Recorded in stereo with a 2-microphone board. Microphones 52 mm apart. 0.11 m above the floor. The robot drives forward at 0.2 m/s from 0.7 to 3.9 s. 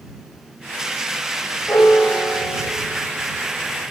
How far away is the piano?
About 1.2 m.